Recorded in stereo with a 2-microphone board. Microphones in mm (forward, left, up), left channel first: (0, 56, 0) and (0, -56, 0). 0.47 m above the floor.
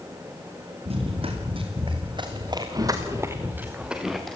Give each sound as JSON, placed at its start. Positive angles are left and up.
{"t": 0.8, "sound": "running footsteps", "side_deg": -60, "distance_m": 6.0}